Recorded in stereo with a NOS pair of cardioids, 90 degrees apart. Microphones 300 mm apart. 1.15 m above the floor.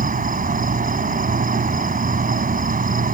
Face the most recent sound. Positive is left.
turn(degrees=-30)